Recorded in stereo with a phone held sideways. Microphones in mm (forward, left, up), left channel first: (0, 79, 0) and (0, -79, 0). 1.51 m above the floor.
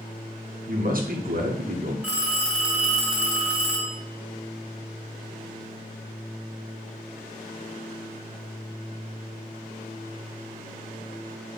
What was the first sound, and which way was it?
A man speaking, 65° right (ahead or behind).